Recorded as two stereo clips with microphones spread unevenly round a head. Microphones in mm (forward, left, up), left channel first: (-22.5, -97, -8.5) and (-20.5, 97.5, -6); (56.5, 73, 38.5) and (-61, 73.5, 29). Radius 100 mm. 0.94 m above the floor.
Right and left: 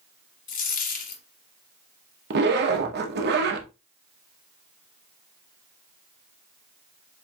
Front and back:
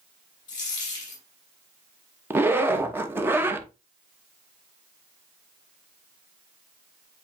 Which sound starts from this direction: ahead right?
A dropped coin, at 0.5 s.